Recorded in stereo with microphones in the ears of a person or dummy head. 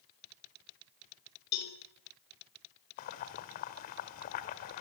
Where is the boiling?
45° left (ahead or behind), 1.5 m.